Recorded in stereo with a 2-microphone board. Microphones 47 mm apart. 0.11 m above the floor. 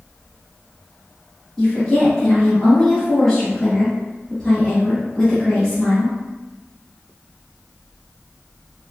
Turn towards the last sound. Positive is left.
turn(degrees=5)  # may be behind; listen again after turning